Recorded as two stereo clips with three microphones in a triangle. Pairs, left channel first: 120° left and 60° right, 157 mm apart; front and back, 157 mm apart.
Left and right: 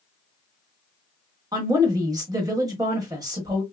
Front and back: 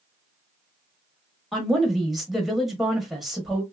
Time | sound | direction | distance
1.5 | a woman speaking | 95° right | 1.0 m